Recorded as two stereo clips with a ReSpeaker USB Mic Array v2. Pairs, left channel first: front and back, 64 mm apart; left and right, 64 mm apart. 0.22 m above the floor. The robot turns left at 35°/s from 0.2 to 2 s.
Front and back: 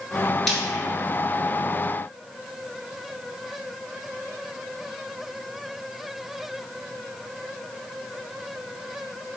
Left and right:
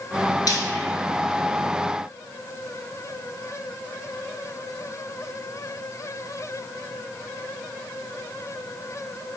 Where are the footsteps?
I don't hear footsteps.